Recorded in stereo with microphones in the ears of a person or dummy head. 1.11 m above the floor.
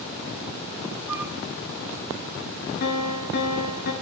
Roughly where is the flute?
Centre.